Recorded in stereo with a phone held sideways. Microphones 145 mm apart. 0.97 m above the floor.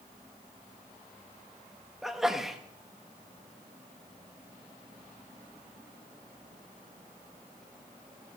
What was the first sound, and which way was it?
A sneeze, centre (ahead or behind).